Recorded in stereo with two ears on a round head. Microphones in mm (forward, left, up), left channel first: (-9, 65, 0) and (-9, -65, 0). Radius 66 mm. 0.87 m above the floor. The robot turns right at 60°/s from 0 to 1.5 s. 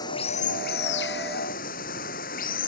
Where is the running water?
25° left; by 2.7 s 115° left.